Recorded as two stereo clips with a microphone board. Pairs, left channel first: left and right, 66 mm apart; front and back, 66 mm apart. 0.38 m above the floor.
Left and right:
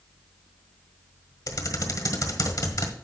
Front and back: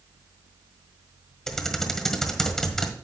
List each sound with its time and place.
1.5 s typing on a keyboard: 80° left, 1.5 m